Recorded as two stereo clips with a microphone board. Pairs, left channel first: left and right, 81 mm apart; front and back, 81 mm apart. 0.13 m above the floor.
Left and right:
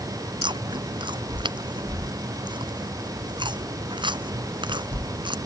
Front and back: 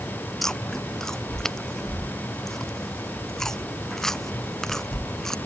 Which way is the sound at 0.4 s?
85° right.